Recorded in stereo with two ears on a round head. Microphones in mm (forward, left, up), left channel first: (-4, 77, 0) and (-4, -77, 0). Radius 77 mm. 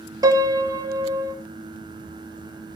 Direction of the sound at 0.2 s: 20° right (ahead or behind).